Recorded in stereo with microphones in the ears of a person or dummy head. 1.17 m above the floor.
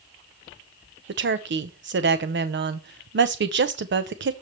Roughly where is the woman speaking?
Right.